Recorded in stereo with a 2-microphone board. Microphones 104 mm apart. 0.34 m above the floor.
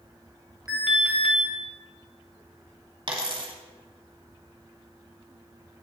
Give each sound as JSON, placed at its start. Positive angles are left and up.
{"t": 0.7, "sound": "an alarm", "side_deg": -5, "distance_m": 2.0}
{"t": 3.1, "sound": "a dropped coin", "side_deg": -50, "distance_m": 1.2}